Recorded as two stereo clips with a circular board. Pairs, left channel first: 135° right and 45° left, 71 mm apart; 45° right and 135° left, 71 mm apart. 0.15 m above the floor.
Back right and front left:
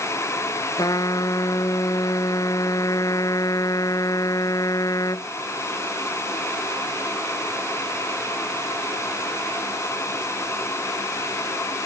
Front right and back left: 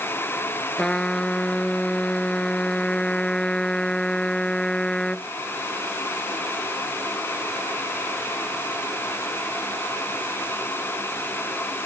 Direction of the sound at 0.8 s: 125° right.